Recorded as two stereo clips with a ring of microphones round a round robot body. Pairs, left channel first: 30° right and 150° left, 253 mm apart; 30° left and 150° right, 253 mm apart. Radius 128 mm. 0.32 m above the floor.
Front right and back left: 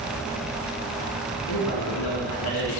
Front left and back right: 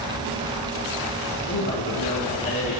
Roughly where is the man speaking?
Ahead.